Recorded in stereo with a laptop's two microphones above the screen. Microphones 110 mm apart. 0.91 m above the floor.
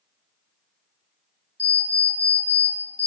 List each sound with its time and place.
1.6 s an alarm clock: 30° left (ahead or behind), 1.6 m